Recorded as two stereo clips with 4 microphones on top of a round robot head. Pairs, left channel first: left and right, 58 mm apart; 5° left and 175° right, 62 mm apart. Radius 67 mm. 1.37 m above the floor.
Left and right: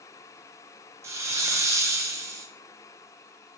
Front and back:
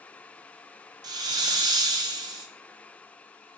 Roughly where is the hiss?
Behind right.